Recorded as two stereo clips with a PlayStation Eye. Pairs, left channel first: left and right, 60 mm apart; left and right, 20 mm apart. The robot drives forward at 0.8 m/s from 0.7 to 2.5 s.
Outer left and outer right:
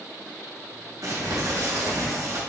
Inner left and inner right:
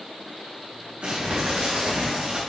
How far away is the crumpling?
About 3.5 m.